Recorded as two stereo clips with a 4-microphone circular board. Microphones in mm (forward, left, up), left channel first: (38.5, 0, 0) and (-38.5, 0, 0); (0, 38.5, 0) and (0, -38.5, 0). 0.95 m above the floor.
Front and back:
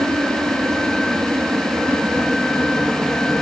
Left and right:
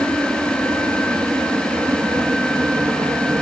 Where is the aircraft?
135° right; by 3.4 s 105° right.